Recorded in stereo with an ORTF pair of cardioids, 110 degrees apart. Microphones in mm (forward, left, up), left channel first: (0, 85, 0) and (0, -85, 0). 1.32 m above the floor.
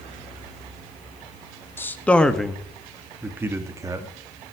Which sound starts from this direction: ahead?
A man speaking, at 1.8 s.